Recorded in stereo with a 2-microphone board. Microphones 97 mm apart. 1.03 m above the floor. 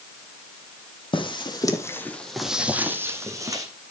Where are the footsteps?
55° left (ahead or behind), 2 m; by 3.6 s 40° right (ahead or behind), 3 m.